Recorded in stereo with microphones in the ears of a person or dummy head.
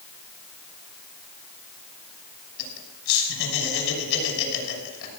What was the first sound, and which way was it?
Laughter, 75° left (ahead or behind).